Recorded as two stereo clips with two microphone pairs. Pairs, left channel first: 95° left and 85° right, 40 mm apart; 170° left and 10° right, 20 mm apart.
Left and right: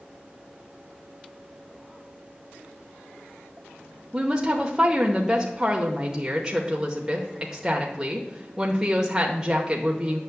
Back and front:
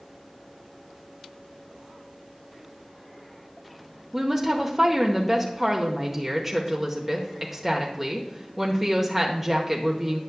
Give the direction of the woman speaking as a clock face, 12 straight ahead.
2 o'clock.